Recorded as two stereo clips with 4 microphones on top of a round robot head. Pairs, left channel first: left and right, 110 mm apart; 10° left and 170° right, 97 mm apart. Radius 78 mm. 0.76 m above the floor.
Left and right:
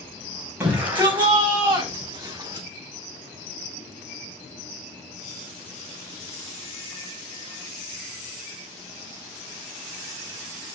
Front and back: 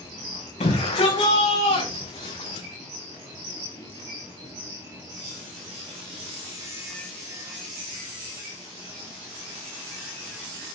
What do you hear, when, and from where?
0.6 s a shout: 15° right, 5 m; by 2.7 s 30° right, 5 m